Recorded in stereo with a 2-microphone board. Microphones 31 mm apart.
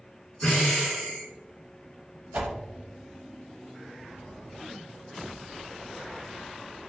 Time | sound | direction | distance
0.4 | breathing | 40° left (ahead or behind) | 1.7 m
2.3 | a whoosh | 60° right (ahead or behind) | 0.6 m